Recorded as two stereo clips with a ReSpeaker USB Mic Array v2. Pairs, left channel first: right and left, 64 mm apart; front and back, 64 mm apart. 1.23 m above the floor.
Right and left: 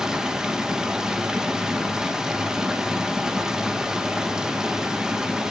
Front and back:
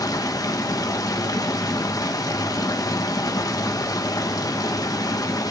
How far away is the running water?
About 1.2 m.